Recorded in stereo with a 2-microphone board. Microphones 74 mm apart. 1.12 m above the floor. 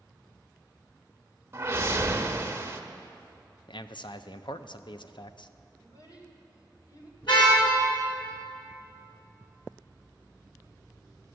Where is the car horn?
80° left, 5.5 m.